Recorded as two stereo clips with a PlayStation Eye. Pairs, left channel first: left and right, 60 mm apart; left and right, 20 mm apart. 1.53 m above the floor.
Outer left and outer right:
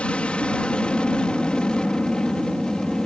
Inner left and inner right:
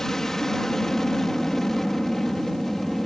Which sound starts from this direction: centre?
An aircraft, at 0.0 s.